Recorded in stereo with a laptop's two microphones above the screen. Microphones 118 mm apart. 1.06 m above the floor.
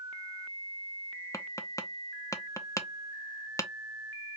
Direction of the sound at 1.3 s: 25° left (ahead or behind).